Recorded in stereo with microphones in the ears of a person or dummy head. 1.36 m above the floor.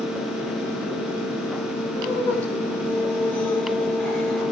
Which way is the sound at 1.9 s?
10° left (ahead or behind).